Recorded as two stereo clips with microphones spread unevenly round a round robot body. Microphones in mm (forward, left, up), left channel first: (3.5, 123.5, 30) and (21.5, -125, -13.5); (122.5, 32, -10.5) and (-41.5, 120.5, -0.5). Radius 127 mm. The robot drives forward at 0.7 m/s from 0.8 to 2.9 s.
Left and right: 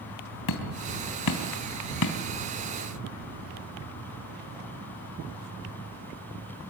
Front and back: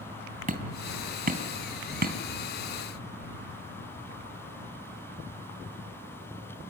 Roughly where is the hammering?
Left.